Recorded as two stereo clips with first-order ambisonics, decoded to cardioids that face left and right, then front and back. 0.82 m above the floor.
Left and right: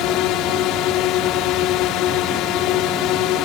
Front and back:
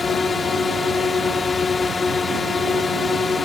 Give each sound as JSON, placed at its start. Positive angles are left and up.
{"t": 0.0, "sound": "a drone", "azimuth_deg": 70}